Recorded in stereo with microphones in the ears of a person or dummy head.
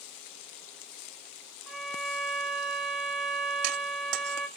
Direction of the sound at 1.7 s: 5° right (ahead or behind).